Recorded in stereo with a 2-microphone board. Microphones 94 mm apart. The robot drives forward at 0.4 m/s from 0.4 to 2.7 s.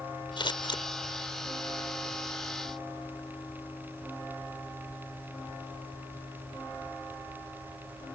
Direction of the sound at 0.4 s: 60° left (ahead or behind).